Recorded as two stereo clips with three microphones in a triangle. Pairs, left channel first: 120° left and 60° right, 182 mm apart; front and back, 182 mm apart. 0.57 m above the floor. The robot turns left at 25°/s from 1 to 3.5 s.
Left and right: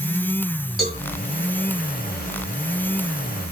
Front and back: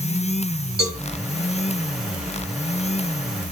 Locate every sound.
0.8 s a cowbell: 150° right, 4.5 m